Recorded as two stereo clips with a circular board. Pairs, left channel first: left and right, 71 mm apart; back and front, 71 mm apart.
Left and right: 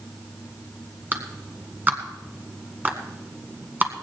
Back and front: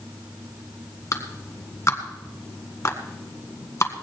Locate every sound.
1.1 s a clap: 145° right, 1.6 m